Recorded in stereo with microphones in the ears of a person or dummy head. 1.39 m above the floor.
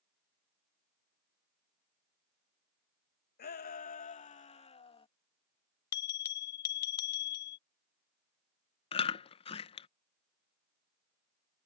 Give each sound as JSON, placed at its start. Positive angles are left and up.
{"t": 3.4, "sound": "a shout", "side_deg": 50}
{"t": 5.9, "sound": "a bell", "side_deg": 50}
{"t": 8.9, "sound": "chewing", "side_deg": 35}